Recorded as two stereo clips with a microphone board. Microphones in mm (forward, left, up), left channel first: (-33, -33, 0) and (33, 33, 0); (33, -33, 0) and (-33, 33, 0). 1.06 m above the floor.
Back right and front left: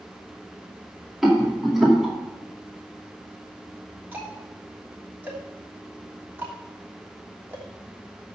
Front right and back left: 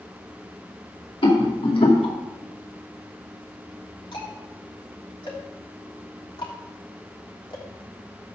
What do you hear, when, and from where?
1.2 s a rattle: 40° right, 2.5 m
4.1 s ticking: 25° right, 3 m